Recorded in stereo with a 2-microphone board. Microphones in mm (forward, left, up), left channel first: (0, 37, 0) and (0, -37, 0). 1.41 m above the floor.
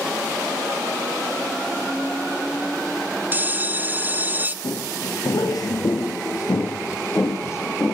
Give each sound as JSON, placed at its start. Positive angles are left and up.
{"t": 3.3, "sound": "a bell", "side_deg": -25, "distance_m": 1.0}
{"t": 4.6, "sound": "footsteps", "side_deg": 65, "distance_m": 3.0}